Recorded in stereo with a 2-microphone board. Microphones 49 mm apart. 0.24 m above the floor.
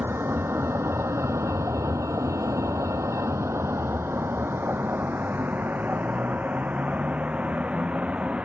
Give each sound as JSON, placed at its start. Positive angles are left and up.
{"t": 0.0, "sound": "a vehicle", "side_deg": -50}